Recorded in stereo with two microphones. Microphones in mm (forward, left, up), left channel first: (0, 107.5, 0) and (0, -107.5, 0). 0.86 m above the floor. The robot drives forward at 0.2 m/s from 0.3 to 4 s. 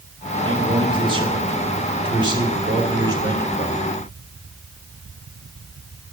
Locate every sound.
0.5 s a man speaking: 25° right (ahead or behind), 2 m; by 4.0 s 20° right (ahead or behind), 3 m